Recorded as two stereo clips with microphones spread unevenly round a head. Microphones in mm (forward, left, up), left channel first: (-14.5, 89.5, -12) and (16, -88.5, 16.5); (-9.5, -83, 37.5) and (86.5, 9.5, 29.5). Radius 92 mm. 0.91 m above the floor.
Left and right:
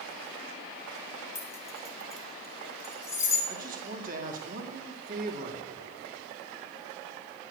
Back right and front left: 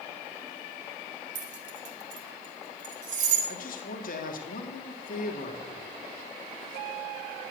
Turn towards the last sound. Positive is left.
turn(degrees=-130)